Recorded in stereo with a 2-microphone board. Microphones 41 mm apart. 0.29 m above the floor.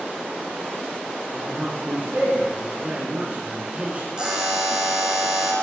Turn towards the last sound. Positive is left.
turn(degrees=-20)  # may be behind; listen again after turning